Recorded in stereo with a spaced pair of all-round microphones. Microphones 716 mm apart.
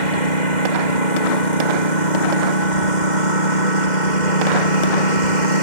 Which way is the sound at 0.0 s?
85° left.